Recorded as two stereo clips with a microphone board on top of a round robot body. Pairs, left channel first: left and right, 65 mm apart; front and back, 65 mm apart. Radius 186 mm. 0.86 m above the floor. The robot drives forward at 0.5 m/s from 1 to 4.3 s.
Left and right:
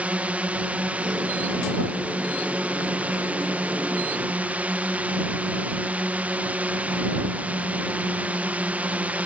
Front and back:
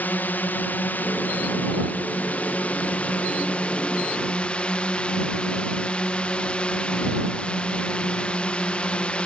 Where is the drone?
40° right; by 9.3 s 55° right.